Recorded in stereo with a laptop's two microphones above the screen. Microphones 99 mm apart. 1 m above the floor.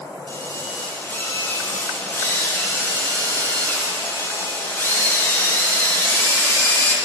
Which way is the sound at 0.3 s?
25° left (ahead or behind).